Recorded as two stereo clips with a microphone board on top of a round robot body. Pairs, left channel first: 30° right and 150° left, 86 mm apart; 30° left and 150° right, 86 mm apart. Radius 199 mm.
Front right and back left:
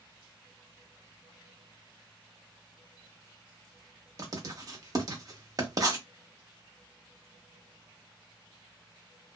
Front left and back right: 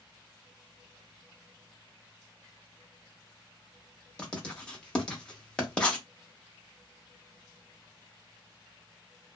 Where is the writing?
110° left, 1.0 m.